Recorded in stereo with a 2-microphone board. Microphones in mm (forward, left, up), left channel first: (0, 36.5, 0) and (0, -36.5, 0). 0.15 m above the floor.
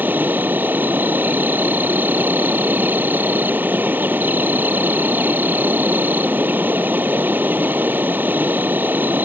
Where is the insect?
25° right (ahead or behind).